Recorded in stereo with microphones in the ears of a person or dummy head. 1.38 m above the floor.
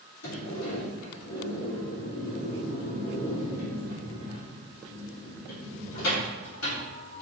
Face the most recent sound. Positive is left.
turn(degrees=80)